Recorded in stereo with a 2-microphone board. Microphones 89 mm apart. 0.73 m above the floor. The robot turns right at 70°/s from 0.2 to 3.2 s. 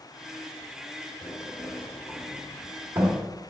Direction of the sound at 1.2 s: 75° left (ahead or behind).